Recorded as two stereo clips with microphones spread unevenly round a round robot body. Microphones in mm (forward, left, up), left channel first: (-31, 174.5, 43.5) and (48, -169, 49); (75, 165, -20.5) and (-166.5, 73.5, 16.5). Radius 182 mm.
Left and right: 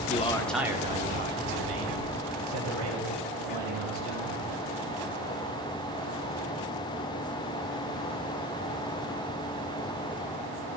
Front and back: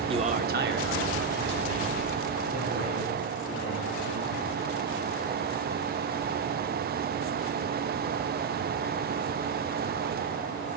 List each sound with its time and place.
0.1 s a man speaking: 135° left, 1.0 m; by 4.3 s 115° right, 4 m